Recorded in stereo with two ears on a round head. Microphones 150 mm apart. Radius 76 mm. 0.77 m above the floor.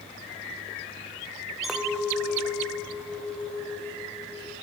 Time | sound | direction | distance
1.6 | a clink | centre (ahead or behind) | 2.5 m